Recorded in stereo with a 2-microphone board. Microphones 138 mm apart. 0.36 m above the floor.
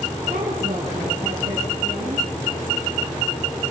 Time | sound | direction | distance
0.3 | a woman speaking | 70° right (ahead or behind) | 4.5 m